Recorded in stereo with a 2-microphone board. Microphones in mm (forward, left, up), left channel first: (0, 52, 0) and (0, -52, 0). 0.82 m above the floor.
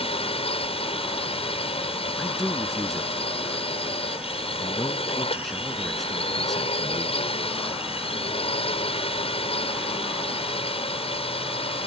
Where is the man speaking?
Centre (ahead or behind).